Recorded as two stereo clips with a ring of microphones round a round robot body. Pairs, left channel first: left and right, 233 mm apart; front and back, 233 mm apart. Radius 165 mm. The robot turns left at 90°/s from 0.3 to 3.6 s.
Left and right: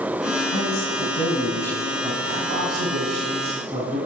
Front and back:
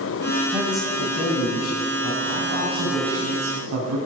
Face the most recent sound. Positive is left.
turn(degrees=-165)